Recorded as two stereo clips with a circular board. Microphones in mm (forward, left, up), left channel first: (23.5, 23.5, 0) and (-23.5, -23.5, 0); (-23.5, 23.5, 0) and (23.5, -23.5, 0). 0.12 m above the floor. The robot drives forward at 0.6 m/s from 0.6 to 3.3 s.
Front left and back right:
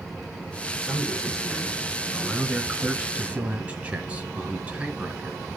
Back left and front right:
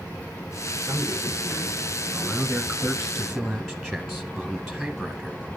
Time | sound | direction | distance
0.8 | a man speaking | 20° right | 1.9 m